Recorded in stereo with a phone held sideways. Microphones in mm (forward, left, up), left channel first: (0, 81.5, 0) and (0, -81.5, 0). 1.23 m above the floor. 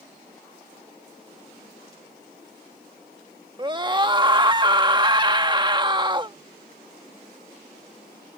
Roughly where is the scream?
Right.